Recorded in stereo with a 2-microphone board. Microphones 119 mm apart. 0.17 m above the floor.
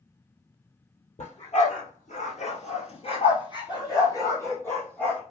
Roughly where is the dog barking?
Left.